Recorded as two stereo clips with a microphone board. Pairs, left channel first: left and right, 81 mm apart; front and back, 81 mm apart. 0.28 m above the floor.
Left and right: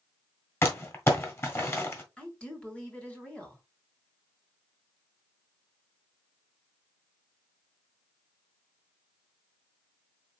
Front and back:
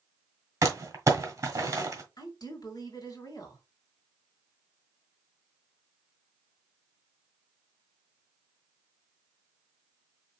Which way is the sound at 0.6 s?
135° left.